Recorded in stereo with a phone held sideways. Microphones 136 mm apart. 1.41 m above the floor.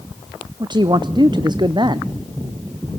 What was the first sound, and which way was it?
A man speaking, 35° right (ahead or behind).